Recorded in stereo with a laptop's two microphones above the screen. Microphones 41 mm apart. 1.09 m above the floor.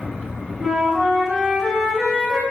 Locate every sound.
0.6 s a flute: 25° right (ahead or behind), 1.2 m